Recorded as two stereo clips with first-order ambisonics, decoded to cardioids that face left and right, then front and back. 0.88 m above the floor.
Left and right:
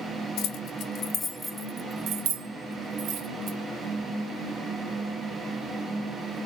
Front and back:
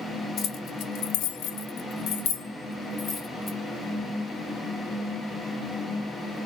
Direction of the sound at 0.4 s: 60° left.